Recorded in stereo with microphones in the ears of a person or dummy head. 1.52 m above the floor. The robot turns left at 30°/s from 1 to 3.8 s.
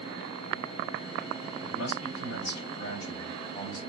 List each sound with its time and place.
1.6 s a man speaking: 90° left, 1.4 m; by 3.8 s 25° left, 1.4 m